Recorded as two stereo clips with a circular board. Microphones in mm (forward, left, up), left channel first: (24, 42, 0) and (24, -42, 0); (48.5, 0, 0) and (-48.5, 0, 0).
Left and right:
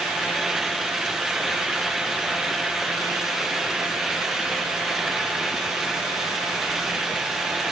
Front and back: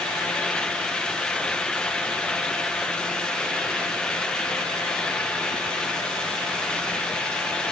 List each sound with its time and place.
Only background noise.